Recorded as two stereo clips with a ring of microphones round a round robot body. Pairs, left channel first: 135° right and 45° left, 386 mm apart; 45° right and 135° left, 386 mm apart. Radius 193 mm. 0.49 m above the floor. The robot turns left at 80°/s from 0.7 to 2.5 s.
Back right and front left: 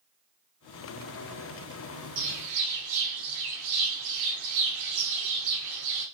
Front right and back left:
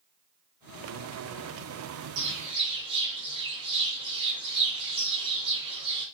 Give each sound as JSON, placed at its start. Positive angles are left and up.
{"t": 2.2, "sound": "a bird", "azimuth_deg": 85, "distance_m": 0.7}